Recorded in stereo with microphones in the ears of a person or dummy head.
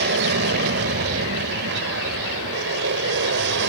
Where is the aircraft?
60° right (ahead or behind); by 3.7 s 65° right (ahead or behind).